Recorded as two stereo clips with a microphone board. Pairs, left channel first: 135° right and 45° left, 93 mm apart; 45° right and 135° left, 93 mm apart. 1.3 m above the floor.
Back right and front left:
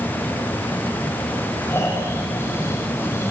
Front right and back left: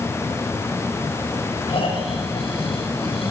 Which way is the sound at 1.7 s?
70° right.